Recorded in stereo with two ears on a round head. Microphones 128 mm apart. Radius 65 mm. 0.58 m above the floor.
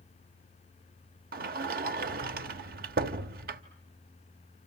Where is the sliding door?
70° right (ahead or behind), 1.0 m.